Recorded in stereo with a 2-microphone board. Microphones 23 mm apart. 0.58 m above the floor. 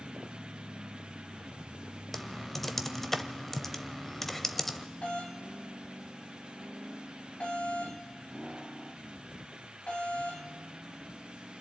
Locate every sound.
2.1 s typing on a keyboard: 10° left (ahead or behind), 0.9 m
5.0 s a doorbell: 60° left (ahead or behind), 4.5 m